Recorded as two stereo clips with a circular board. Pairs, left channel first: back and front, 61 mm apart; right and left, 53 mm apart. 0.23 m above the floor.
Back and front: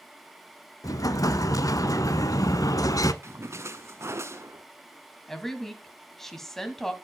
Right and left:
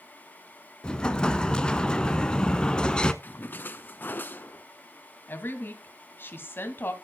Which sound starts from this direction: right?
A woman speaking, at 5.3 s.